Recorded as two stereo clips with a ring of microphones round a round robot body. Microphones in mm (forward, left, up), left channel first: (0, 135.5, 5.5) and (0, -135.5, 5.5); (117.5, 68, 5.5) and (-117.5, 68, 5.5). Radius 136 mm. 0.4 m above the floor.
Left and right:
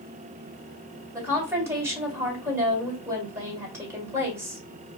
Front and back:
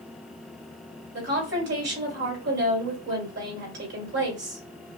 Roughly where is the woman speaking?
Behind.